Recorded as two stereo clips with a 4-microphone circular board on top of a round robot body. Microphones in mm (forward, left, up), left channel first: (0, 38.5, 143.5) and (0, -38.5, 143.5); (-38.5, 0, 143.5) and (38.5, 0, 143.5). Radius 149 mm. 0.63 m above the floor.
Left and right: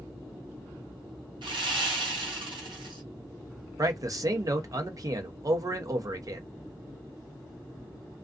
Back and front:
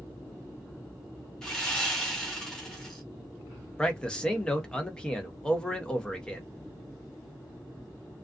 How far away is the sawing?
About 0.8 m.